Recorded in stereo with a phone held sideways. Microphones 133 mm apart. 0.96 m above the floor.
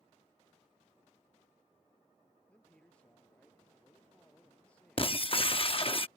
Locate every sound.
2.5 s a man speaking: 10° left (ahead or behind)
5.0 s breaking glass: 45° left (ahead or behind)